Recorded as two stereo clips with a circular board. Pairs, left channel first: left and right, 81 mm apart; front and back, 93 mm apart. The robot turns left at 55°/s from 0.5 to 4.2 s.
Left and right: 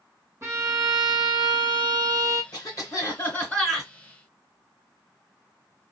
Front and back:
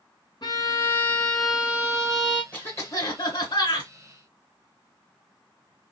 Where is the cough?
70° left, 2.5 m; by 3.9 s 5° right, 2.5 m.